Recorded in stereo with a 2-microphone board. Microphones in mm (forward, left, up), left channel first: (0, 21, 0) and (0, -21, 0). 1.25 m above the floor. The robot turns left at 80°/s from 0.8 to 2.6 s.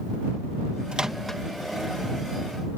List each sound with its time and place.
0.9 s a microwave: 25° right (ahead or behind); by 1.4 s 15° left (ahead or behind)